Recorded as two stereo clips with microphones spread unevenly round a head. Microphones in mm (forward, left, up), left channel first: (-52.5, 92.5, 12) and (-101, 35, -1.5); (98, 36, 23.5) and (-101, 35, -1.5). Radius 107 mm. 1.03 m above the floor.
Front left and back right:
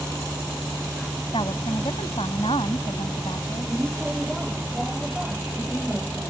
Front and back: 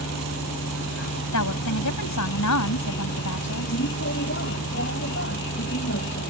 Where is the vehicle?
45° right.